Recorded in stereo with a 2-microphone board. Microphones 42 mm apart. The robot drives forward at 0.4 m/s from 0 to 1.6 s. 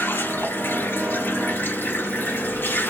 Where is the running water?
65° left (ahead or behind), 3 m; by 2.9 s 60° left (ahead or behind), 3.5 m.